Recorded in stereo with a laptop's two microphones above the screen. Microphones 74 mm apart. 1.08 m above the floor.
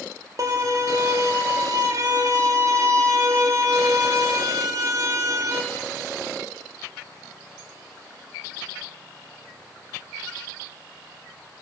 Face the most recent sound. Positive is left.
turn(degrees=-45)  # may be behind; listen again after turning